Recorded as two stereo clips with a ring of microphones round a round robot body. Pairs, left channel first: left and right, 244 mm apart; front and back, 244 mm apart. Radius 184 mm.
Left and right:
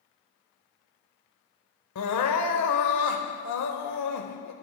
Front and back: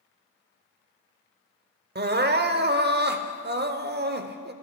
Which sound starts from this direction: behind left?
Crying, at 1.9 s.